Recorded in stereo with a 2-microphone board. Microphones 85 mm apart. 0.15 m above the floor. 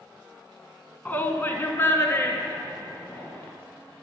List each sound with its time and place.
1.1 s a shout: 20° left (ahead or behind), 1.1 m; by 3.5 s 30° left (ahead or behind), 2.5 m